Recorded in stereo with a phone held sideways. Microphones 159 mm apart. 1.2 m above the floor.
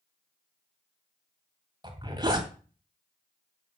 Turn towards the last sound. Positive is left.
turn(degrees=-25)  # may be behind; listen again after turning